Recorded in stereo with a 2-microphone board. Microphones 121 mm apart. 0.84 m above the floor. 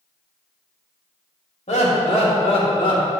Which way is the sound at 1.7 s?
65° left (ahead or behind).